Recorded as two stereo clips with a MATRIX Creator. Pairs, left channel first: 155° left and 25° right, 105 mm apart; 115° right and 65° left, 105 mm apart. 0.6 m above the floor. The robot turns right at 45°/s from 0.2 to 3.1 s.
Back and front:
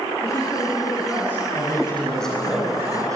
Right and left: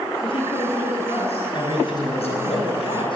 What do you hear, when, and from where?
0.2 s a woman speaking: 145° right, 6 m; by 2.5 s 40° right, 6 m
1.5 s a man speaking: 150° right, 5.5 m; by 3.1 s 80° right, 5.5 m